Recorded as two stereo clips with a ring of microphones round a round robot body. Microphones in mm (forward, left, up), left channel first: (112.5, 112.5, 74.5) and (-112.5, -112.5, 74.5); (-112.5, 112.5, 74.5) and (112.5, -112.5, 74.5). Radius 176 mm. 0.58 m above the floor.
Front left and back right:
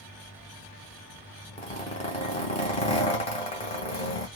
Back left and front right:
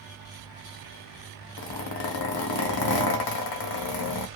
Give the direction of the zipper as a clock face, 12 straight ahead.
8 o'clock.